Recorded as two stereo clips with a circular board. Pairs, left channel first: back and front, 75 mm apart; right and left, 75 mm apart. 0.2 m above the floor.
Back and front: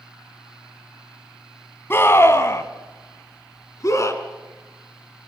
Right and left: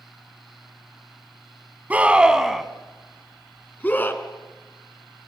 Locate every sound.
1.9 s a scream: 150° left, 1.5 m; by 4.2 s 145° right, 2 m